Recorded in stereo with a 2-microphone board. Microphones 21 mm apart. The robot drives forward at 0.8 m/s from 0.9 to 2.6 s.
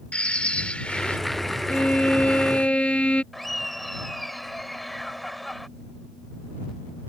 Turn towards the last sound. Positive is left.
turn(degrees=5)  # may be behind; listen again after turning